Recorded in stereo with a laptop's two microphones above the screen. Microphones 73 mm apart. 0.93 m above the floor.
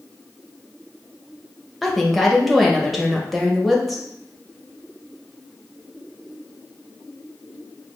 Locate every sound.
1.8 s a woman speaking: centre (ahead or behind), 1.0 m